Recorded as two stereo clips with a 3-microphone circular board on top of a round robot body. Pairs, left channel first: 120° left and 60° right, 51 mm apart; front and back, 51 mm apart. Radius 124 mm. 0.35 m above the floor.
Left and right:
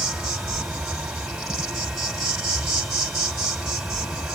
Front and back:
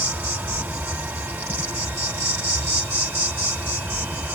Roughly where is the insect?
Behind right.